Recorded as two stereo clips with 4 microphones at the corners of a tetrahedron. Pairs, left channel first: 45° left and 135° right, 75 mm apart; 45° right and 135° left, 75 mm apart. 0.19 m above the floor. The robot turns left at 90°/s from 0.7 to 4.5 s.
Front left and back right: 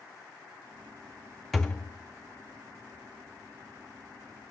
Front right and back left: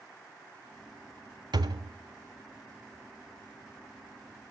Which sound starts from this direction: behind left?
A thud, at 1.5 s.